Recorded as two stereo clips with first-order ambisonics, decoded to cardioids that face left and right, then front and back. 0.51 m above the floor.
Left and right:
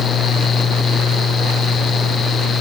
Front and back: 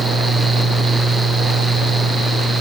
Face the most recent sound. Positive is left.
No sound to turn to.